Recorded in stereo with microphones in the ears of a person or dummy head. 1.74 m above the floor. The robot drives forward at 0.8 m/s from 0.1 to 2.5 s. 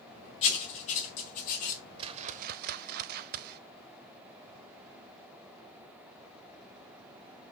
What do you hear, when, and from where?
0.4 s writing: 40° left (ahead or behind), 3.5 m; by 1.8 s 50° left (ahead or behind), 3 m
2.0 s a whoosh: 30° right (ahead or behind), 0.8 m; by 3.6 s 50° right (ahead or behind), 0.5 m